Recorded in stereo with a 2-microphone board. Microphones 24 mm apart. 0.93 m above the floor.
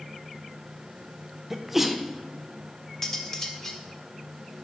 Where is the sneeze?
5° right (ahead or behind), 0.8 m.